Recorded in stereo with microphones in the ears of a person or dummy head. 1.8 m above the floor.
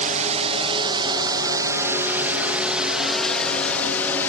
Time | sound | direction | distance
0.0 | a drone | 40° right (ahead or behind) | ?